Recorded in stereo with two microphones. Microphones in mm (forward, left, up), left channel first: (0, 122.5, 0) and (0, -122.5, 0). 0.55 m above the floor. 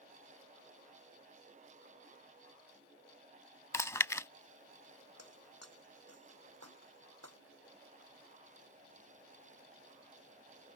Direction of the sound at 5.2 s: 85° right.